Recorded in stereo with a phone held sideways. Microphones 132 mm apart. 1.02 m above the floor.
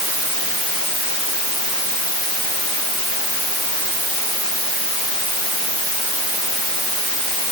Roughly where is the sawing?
No sawing in this recording.